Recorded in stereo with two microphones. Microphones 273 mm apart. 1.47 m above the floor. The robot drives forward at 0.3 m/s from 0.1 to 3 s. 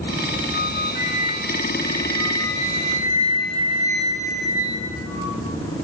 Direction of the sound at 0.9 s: 70° right (ahead or behind).